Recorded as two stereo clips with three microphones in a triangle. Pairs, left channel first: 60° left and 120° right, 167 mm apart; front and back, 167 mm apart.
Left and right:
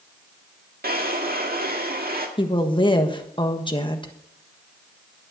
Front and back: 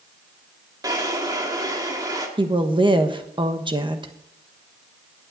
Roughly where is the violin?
I don't hear a violin.